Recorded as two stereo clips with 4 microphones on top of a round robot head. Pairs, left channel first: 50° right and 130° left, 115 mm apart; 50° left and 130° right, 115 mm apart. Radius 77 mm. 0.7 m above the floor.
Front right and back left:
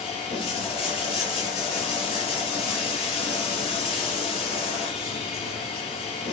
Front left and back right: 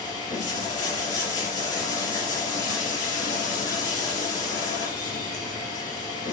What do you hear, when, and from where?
0.0 s running water: 5° right, 4 m